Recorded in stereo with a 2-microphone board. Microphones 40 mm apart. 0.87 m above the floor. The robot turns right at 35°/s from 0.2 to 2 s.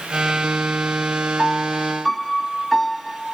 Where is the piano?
25° left (ahead or behind); by 3.4 s 5° left (ahead or behind).